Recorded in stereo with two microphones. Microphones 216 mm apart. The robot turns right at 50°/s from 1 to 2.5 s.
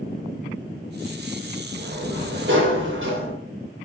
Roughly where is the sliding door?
Behind right.